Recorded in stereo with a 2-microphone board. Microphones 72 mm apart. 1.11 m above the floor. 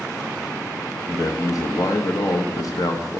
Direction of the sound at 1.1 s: 55° left (ahead or behind).